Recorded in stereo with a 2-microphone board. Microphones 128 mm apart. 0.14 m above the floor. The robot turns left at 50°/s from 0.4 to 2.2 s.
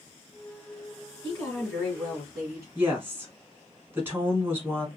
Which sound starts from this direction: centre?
A woman speaking, at 2.8 s.